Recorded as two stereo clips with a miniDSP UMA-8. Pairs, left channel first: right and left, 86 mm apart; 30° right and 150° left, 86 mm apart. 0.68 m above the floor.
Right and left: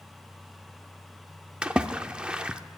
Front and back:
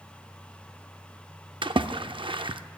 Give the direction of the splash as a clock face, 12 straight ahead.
6 o'clock.